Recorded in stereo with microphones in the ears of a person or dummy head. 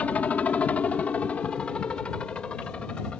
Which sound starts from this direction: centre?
A helicopter, at 0.0 s.